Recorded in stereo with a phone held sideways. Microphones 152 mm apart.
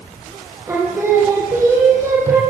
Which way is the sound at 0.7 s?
20° right (ahead or behind).